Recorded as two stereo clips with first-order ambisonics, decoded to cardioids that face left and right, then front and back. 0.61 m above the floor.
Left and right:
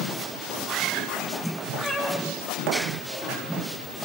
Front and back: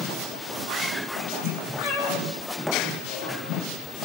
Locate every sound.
1.8 s a cat meowing: 15° right, 9 m